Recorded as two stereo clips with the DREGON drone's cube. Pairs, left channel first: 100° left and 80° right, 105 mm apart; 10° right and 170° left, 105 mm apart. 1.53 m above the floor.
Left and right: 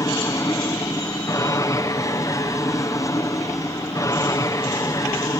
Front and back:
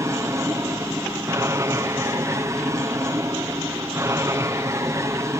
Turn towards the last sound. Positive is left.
turn(degrees=130)